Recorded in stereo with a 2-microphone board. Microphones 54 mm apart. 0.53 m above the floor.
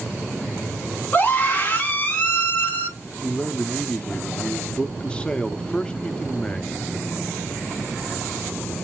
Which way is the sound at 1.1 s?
30° left (ahead or behind).